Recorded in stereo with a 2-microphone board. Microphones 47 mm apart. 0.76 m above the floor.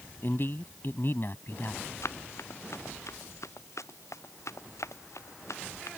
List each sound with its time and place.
0.2 s a man speaking: 45° left (ahead or behind)
2.0 s running footsteps: 70° left (ahead or behind); by 5.9 s 80° left